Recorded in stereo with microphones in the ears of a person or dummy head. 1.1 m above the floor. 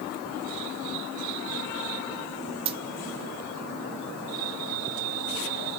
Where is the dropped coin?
30° right (ahead or behind), 0.6 m.